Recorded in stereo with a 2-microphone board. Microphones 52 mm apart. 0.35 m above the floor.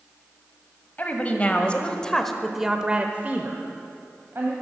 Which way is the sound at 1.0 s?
30° left (ahead or behind).